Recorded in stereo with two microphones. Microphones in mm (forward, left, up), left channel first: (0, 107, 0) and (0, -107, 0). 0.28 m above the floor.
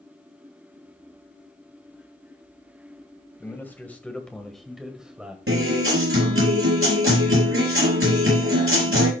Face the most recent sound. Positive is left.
turn(degrees=-75)  # may be behind; listen again after turning